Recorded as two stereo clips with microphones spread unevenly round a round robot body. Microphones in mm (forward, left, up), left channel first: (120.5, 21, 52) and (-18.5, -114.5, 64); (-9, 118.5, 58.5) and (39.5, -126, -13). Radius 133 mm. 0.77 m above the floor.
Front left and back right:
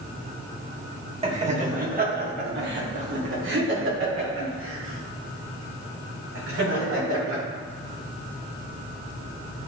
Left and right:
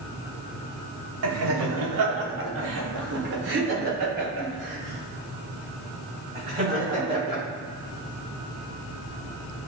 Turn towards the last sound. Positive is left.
turn(degrees=-145)